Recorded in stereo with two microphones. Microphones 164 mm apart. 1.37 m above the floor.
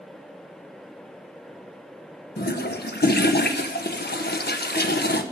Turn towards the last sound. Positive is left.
turn(degrees=85)